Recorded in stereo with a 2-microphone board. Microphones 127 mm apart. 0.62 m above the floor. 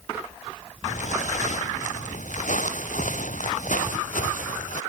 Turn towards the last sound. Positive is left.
turn(degrees=85)